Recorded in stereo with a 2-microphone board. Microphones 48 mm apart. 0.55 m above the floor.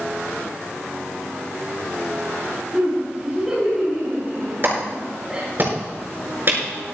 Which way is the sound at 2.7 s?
10° right (ahead or behind).